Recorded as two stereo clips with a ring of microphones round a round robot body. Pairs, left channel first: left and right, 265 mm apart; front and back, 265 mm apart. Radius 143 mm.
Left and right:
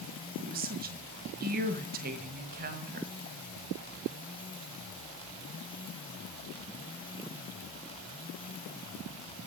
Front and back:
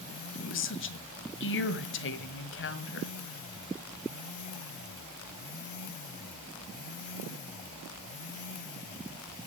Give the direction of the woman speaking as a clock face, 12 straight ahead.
1 o'clock.